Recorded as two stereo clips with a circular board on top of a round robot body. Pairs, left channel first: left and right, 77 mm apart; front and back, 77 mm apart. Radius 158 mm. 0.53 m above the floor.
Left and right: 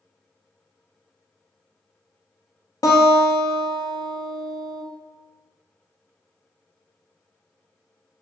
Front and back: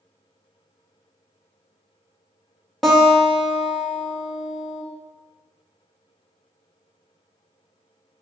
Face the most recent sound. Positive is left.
turn(degrees=85)